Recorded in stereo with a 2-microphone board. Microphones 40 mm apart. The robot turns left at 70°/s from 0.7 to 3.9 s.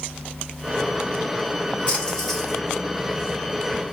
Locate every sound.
1.9 s a splash: 40° left, 2 m; by 2.6 s 10° right, 2 m